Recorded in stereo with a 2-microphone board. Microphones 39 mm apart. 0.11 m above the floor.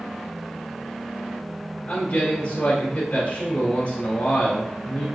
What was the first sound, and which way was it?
A man speaking, 35° left (ahead or behind).